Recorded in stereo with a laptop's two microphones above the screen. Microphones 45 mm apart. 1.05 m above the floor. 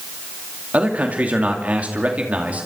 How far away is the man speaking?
About 2.5 m.